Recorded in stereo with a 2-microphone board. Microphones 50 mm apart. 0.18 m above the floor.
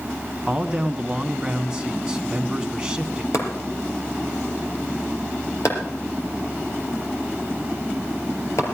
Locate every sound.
0.5 s a man speaking: 15° right (ahead or behind), 1.2 m
3.3 s chopping: 65° left (ahead or behind), 4 m